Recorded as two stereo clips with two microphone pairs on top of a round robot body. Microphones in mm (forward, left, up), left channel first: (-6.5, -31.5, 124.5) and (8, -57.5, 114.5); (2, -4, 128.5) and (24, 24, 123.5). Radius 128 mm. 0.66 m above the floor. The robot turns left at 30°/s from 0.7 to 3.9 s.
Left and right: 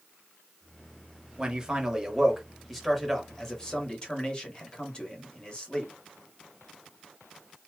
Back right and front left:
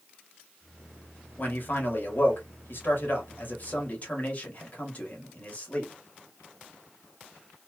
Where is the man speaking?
100° right, 1.6 m; by 5.9 s 175° right, 1.6 m.